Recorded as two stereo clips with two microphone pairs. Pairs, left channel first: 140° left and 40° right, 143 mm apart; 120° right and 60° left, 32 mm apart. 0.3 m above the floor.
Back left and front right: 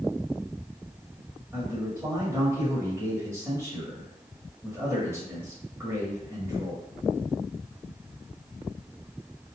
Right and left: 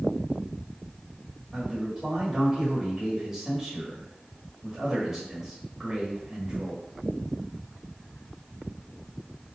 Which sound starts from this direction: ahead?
A man speaking, at 1.5 s.